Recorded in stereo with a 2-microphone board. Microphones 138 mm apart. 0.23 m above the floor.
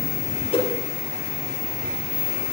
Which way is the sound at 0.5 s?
45° left (ahead or behind).